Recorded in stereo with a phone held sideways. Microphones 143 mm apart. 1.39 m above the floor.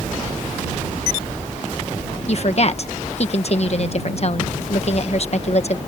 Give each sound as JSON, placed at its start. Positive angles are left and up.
{"t": 2.3, "sound": "a woman speaking", "side_deg": 50}